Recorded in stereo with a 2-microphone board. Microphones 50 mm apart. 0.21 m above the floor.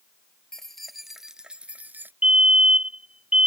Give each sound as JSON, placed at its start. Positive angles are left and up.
{"t": 0.5, "sound": "keys jangling", "side_deg": 10}
{"t": 2.2, "sound": "a fire alarm", "side_deg": -20}